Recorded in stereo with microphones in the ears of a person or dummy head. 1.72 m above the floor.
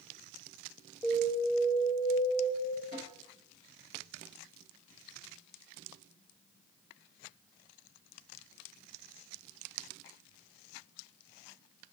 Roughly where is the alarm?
Centre.